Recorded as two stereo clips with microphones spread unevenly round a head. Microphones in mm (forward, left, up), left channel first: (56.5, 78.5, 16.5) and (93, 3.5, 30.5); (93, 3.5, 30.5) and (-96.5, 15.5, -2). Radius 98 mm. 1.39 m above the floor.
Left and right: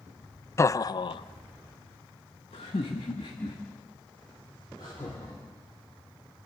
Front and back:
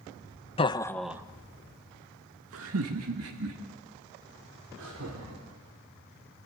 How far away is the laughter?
About 1.0 m.